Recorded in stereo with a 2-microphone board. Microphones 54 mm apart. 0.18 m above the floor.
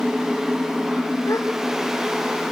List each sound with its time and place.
1.3 s a gasp: 90° left, 4.5 m